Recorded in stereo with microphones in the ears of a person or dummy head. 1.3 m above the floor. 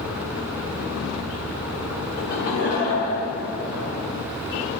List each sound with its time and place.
2.2 s laughter: 55° left (ahead or behind), 2.0 m; by 3.9 s 60° left (ahead or behind), 4 m